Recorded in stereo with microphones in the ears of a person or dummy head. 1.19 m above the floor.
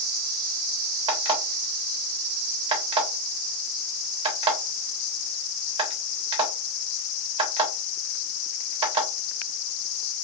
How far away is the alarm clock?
About 1.1 m.